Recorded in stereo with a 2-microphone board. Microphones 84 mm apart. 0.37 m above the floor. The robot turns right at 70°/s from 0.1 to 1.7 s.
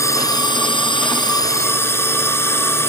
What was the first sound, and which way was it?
A drone, 40° left.